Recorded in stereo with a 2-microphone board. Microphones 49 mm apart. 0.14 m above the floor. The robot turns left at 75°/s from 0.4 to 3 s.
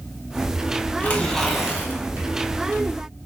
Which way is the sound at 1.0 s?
40° left.